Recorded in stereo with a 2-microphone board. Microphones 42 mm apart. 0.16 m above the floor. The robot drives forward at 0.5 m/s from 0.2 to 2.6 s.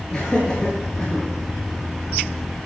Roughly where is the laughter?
Centre.